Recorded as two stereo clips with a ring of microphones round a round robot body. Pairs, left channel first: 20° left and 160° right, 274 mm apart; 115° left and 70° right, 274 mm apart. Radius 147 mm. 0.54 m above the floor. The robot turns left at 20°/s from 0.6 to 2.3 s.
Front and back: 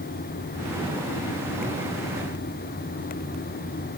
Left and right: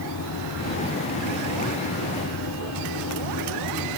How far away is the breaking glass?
No breaking glass in this recording.